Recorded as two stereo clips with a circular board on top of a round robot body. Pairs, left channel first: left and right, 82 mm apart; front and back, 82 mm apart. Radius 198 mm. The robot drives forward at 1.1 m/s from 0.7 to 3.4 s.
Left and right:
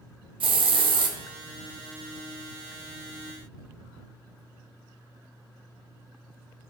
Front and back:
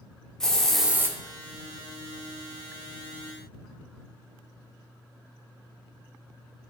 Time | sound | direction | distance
0.4 | a hiss | 85° right | 0.6 m